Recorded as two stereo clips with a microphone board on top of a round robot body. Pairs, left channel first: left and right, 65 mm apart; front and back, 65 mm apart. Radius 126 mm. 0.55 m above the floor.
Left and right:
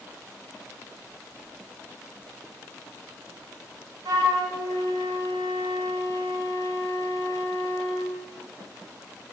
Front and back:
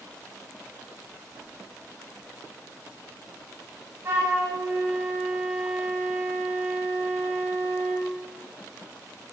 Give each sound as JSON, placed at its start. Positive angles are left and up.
{"t": 4.0, "sound": "a flute", "azimuth_deg": -125, "distance_m": 0.6}